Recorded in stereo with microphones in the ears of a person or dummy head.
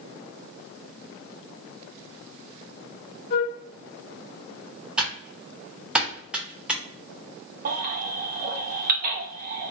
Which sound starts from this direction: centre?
Typing on a keyboard, at 5.0 s.